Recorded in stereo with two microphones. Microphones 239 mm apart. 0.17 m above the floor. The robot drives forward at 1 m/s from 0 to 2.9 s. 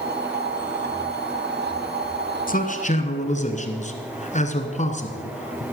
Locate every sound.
2.5 s a man speaking: 35° left (ahead or behind), 1.4 m; by 5.6 s 30° left (ahead or behind), 1.7 m